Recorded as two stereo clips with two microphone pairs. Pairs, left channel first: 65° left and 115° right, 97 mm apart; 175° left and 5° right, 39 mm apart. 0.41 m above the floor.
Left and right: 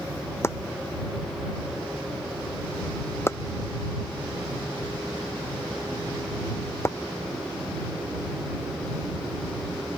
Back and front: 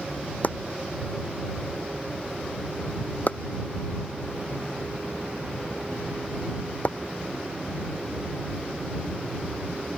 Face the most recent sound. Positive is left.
turn(degrees=130)